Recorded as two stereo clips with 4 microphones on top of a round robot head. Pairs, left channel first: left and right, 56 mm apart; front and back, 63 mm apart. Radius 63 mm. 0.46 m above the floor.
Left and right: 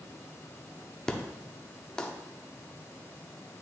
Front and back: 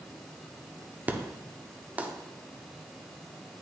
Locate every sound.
1.1 s an explosion: 150° left, 1.0 m